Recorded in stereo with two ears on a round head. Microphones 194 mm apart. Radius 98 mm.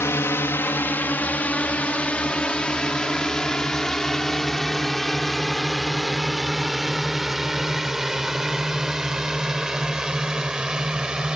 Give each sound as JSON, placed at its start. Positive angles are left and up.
{"t": 0.0, "sound": "a drone", "side_deg": 10}